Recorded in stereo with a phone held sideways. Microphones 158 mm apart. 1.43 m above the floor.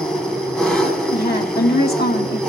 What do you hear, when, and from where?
0.0 s an engine running: 5° left (ahead or behind), 2.5 m
1.1 s a woman speaking: 80° left, 1.7 m